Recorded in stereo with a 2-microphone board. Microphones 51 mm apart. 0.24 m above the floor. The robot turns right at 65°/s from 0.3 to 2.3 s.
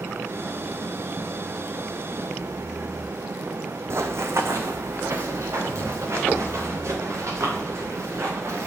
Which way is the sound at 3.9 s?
60° right (ahead or behind).